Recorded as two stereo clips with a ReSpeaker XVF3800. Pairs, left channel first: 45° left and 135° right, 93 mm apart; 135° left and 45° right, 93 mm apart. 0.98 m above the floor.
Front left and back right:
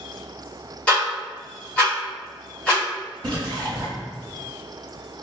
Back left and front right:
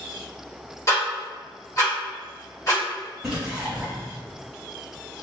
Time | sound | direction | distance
0.9 | ticking | 115° left | 1.0 m
3.2 | a splash | 130° right | 1.0 m